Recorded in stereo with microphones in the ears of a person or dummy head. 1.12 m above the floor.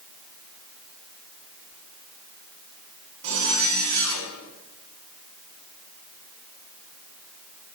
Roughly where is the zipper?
Right.